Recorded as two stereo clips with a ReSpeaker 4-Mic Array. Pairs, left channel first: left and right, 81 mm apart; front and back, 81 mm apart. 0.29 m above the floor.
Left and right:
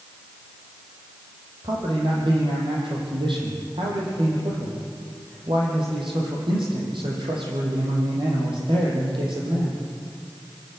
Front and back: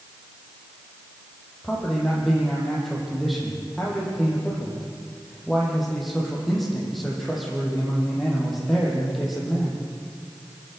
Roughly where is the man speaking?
Right.